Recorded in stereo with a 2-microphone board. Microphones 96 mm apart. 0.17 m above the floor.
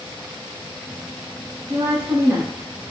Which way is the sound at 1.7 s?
35° right (ahead or behind).